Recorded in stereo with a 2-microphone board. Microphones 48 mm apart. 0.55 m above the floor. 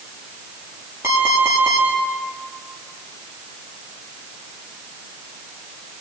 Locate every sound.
1.0 s an alarm clock: 75° right (ahead or behind), 7 m